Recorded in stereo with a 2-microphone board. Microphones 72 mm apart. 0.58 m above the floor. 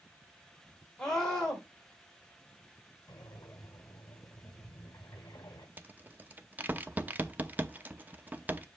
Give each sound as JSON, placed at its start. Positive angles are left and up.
{"t": 1.0, "sound": "a scream", "side_deg": 10, "distance_m": 2.5}
{"t": 3.1, "sound": "breathing", "side_deg": 55, "distance_m": 1.2}
{"t": 5.8, "sound": "a rattle", "side_deg": -25, "distance_m": 0.7}